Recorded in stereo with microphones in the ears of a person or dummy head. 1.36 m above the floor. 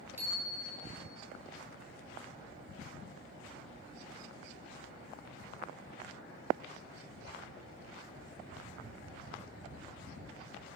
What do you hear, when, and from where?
0.2 s a bicycle bell: 15° right (ahead or behind), 5 m